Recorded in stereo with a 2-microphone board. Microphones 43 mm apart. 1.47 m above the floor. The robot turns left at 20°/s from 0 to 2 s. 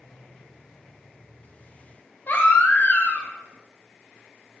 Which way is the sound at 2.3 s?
45° left (ahead or behind).